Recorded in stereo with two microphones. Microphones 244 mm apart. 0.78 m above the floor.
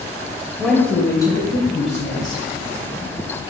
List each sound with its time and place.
0.6 s a woman speaking: centre (ahead or behind), 3 m; by 2.5 s 40° left (ahead or behind), 4 m